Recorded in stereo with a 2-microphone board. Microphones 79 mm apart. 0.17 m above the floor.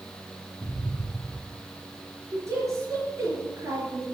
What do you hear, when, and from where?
0.6 s an explosion: 10° right (ahead or behind), 3 m
2.3 s a woman speaking: 40° right (ahead or behind), 3.5 m